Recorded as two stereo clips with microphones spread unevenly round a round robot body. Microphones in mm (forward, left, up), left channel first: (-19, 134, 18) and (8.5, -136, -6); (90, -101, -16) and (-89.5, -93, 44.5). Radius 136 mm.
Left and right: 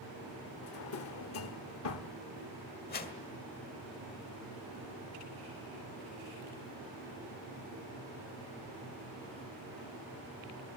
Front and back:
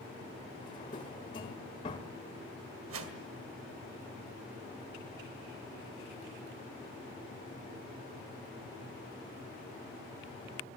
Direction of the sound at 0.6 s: 55° left.